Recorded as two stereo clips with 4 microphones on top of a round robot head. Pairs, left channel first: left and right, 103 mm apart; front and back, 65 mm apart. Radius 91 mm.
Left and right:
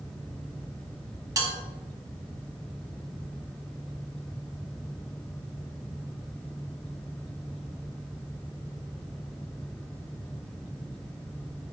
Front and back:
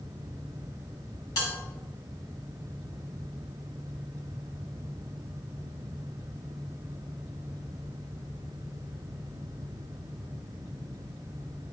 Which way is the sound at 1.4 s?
35° right.